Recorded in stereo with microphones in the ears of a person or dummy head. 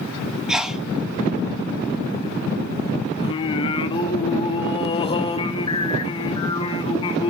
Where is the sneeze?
5° right (ahead or behind), 1.0 m.